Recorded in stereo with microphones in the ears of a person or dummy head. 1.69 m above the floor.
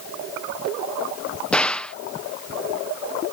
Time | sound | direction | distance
1.5 | a gunshot | 5° left (ahead or behind) | ?